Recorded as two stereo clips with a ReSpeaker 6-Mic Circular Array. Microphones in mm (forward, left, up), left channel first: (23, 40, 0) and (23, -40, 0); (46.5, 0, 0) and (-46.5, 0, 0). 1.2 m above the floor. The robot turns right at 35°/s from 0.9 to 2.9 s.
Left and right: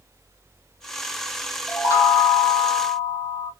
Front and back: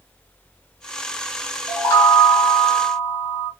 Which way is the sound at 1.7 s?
45° left.